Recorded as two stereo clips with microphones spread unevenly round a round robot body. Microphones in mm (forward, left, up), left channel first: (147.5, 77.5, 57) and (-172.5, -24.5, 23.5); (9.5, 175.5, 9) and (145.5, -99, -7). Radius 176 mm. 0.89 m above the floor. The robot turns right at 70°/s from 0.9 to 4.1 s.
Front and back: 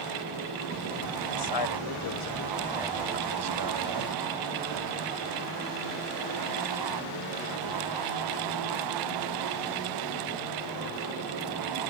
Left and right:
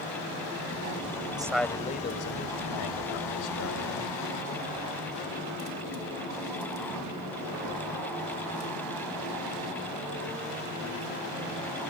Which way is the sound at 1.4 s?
15° left.